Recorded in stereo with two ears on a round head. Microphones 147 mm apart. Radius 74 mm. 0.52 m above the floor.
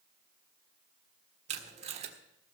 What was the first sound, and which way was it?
Tape being pulled, 40° right (ahead or behind).